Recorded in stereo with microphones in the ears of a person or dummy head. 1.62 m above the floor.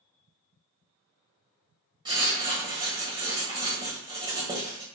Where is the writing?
25° right (ahead or behind), 0.6 m.